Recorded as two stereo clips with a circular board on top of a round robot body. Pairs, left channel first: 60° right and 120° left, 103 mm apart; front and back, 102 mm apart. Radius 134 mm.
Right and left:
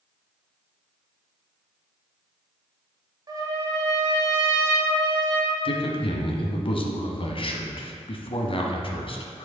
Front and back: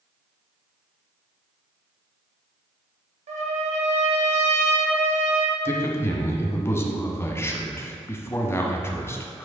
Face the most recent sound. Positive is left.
turn(degrees=-60)